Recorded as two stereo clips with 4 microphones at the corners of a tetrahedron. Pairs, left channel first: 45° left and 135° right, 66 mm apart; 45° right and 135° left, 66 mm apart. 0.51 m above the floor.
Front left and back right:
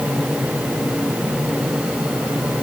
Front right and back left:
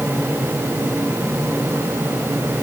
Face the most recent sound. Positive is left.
No sound to turn to.